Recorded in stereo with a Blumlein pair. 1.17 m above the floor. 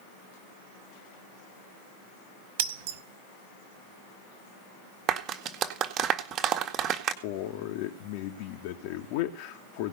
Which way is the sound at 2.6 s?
50° right.